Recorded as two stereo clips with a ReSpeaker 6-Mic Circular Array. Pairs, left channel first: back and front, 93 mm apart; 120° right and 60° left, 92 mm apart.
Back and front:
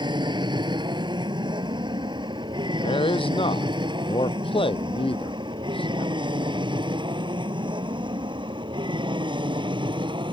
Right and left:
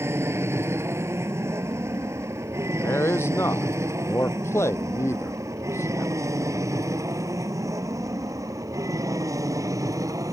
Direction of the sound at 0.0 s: 5° left.